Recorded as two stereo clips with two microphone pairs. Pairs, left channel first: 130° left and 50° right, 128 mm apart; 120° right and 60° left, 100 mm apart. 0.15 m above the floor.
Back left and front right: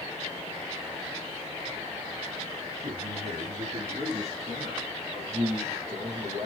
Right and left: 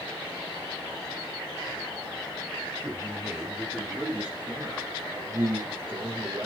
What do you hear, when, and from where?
2.8 s a man speaking: 35° right, 4 m; by 4.9 s 10° right, 4.5 m
5.1 s a man speaking: 5° right, 4.5 m